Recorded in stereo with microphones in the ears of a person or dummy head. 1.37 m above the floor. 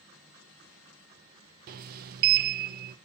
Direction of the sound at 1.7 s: 50° right (ahead or behind).